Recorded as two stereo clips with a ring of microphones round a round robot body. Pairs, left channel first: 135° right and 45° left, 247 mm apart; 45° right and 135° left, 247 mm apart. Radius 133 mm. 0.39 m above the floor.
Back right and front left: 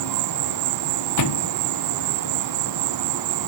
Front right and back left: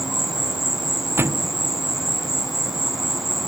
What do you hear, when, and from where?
0.0 s an insect: 45° left
1.2 s a thud: 145° right